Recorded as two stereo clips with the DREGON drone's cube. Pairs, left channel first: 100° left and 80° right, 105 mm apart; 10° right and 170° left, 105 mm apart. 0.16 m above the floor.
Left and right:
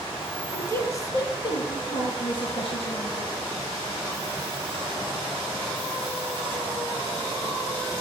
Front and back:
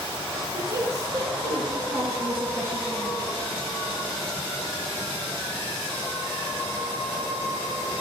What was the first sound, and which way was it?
A woman speaking, 155° left.